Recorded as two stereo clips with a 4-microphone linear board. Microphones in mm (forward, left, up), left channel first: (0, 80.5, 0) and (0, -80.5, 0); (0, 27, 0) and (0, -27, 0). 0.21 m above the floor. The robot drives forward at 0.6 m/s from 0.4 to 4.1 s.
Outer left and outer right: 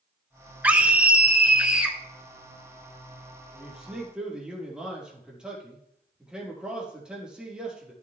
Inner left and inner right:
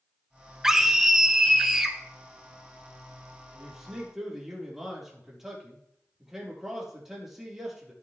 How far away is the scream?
About 2 m.